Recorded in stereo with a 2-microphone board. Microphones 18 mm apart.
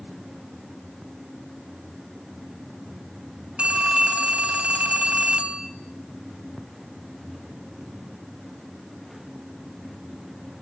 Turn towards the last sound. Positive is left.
turn(degrees=-75)  # may be behind; listen again after turning